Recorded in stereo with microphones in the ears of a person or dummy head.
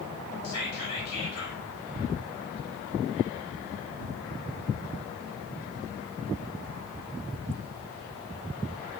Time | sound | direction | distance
0.4 | whispering | 85° left | 1.2 m